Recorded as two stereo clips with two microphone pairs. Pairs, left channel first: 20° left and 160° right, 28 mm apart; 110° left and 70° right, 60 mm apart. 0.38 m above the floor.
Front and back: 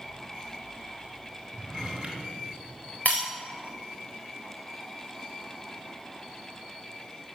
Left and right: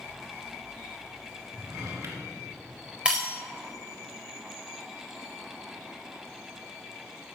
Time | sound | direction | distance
1.5 | a drawer | 90° right | 2 m
3.0 | breaking glass | 5° left | 4 m